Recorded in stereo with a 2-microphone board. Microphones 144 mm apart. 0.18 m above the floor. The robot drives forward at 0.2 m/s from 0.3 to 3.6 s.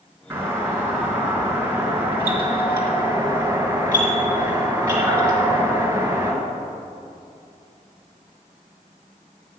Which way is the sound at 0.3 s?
15° right (ahead or behind).